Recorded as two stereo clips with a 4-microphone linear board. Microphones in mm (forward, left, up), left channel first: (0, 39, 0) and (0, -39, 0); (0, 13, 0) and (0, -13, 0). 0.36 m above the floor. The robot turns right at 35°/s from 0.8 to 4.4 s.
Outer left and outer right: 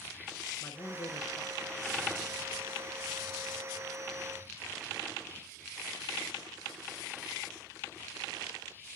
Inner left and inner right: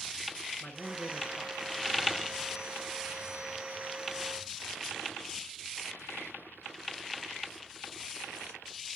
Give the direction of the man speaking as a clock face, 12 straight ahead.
9 o'clock.